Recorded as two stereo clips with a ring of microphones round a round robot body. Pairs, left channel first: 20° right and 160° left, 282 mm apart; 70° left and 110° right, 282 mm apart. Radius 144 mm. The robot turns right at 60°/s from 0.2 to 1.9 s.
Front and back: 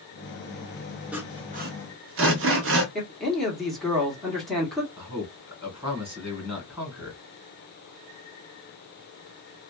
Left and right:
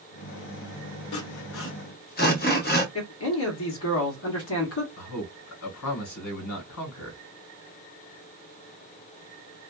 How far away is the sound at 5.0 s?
About 1.7 m.